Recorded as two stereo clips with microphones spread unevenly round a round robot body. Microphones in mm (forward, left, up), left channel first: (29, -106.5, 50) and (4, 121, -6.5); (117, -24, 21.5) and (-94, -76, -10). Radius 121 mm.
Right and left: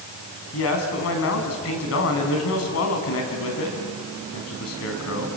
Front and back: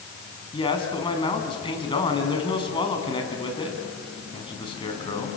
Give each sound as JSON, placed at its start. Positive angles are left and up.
{"t": 0.5, "sound": "a man speaking", "azimuth_deg": -55, "distance_m": 5.0}